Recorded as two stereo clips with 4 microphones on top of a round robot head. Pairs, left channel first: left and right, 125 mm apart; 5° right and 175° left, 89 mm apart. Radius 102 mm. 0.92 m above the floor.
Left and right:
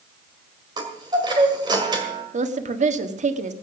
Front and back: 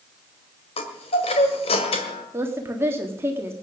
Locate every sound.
0.8 s a chime: 25° right, 1.8 m
2.3 s a woman speaking: 115° right, 1.5 m